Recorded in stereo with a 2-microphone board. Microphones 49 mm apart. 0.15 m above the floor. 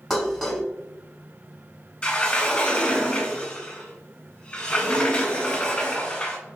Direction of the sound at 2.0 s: 25° left (ahead or behind).